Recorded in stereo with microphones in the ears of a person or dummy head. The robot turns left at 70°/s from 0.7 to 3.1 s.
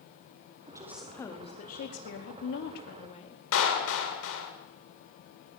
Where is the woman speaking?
165° right, 4 m; by 3.4 s 30° left, 4 m.